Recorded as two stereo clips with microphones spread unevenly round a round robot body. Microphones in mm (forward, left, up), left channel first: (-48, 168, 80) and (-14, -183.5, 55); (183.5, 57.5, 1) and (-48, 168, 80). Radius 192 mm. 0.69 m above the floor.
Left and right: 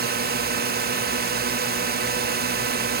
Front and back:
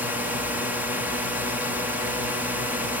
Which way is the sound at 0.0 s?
95° right.